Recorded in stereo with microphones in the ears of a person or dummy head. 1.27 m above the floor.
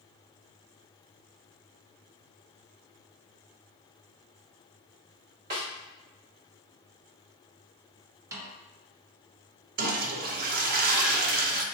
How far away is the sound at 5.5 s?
About 2.0 m.